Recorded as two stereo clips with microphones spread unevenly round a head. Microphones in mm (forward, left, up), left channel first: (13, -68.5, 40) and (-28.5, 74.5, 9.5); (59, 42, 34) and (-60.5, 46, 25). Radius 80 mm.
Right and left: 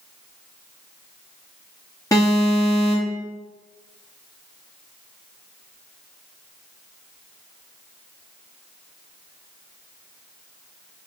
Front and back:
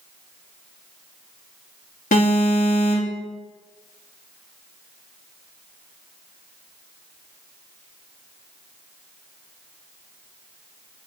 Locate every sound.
2.1 s an alarm: straight ahead, 3.5 m